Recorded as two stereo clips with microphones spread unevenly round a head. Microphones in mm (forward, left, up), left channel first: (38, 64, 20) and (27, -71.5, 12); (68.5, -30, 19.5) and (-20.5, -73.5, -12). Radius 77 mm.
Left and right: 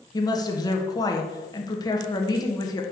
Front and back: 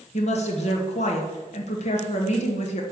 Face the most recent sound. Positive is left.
turn(degrees=20)